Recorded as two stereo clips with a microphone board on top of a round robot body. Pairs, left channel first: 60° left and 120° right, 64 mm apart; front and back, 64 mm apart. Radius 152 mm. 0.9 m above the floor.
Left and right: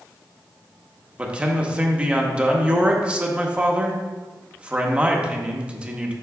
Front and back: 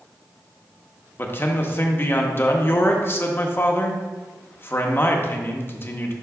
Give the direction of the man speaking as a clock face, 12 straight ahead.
2 o'clock.